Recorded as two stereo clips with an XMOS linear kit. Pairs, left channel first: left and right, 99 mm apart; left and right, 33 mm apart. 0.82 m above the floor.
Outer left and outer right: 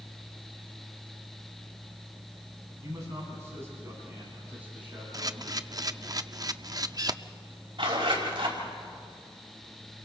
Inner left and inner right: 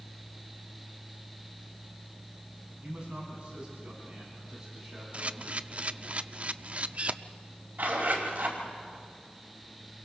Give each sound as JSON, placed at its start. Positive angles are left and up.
{"t": 2.8, "sound": "a man speaking", "side_deg": -35, "distance_m": 9.0}
{"t": 5.1, "sound": "a camera shutter", "side_deg": -40, "distance_m": 0.5}
{"t": 7.8, "sound": "a zipper", "side_deg": -55, "distance_m": 5.0}